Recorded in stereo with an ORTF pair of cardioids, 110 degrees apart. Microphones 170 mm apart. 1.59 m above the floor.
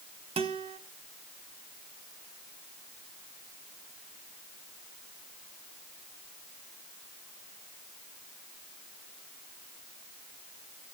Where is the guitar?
35° right, 1.8 m.